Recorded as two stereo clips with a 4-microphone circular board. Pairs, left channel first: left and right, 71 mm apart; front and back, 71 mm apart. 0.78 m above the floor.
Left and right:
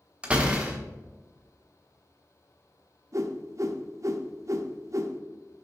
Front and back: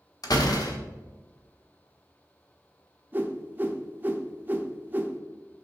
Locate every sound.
0.2 s a door slam: 15° right, 1.0 m
3.1 s a whoosh: 120° right, 0.6 m